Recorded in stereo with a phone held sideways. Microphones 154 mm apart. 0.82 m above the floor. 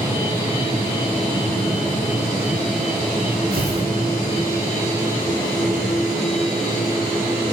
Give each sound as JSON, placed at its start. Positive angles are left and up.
{"t": 3.5, "sound": "tearing paper", "side_deg": -80, "distance_m": 3.0}